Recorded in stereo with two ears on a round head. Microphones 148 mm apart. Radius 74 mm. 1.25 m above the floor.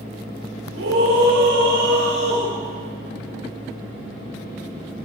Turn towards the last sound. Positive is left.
turn(degrees=-75)  # may be behind; listen again after turning